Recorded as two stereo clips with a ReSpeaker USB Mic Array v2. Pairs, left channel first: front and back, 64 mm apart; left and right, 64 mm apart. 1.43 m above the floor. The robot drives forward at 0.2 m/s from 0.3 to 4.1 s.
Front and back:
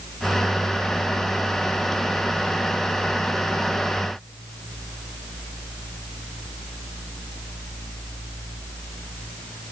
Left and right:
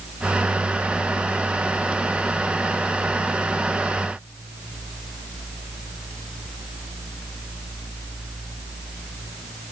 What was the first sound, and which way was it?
Only background noise.